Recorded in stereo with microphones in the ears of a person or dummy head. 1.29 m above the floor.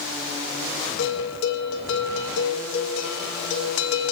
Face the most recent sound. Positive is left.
turn(degrees=75)  # may be behind; listen again after turning